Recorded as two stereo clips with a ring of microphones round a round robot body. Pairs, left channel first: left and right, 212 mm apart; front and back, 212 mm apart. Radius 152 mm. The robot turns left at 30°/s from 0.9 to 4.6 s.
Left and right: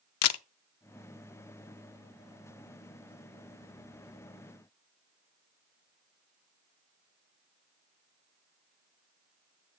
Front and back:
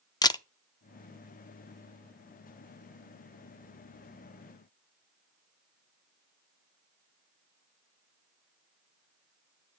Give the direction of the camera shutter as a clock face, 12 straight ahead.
9 o'clock.